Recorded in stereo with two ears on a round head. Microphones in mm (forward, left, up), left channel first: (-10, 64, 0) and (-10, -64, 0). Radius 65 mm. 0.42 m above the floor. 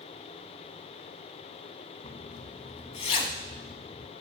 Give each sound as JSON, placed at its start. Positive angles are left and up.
{"t": 2.0, "sound": "a zipper", "side_deg": 40, "distance_m": 0.7}